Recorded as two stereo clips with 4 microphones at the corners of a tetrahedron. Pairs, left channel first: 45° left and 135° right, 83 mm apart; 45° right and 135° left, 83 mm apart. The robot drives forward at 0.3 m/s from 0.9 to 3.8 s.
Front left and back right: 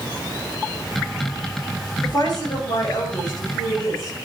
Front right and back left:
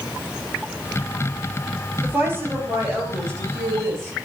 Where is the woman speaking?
75° left, 3 m; by 4.1 s 85° left, 3 m.